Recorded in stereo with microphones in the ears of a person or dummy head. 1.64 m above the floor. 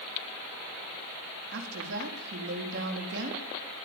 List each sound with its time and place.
1.5 s a woman speaking: 65° right (ahead or behind), 4 m